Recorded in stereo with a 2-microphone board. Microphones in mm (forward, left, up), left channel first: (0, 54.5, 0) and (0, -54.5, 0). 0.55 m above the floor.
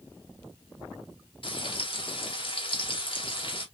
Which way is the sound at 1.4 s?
55° left (ahead or behind).